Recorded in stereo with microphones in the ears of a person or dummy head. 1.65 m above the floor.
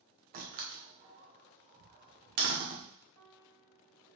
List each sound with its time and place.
0.3 s a door slam: 45° right (ahead or behind), 0.7 m
3.2 s a piano: 50° right (ahead or behind), 1.7 m